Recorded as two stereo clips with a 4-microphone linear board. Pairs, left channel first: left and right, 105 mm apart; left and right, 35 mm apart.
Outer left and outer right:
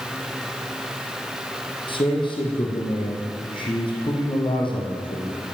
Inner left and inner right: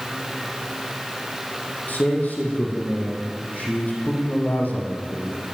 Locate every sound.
1.9 s a man speaking: 50° left (ahead or behind), 6.5 m